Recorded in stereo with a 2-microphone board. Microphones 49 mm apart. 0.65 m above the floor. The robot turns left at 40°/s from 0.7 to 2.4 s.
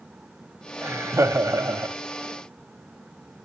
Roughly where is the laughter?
Ahead right.